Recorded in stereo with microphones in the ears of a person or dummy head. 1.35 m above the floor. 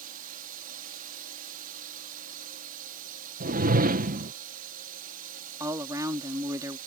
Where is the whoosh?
45° right (ahead or behind).